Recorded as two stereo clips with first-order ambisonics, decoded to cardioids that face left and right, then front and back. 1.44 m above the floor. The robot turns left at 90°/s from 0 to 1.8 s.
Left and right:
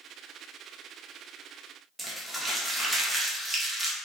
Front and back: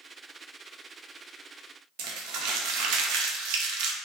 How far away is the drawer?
No drawer in this recording.